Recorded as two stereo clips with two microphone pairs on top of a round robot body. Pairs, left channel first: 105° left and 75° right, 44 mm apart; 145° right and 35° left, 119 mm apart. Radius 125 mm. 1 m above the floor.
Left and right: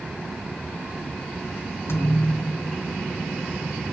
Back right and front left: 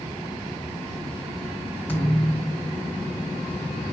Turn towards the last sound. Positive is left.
turn(degrees=140)